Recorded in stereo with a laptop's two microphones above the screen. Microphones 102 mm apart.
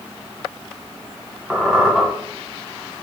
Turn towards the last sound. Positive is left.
turn(degrees=-5)  # may be behind; listen again after turning